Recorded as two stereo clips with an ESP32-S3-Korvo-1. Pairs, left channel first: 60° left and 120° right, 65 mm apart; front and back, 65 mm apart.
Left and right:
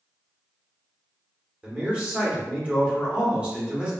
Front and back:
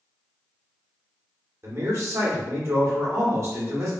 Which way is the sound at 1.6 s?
175° left.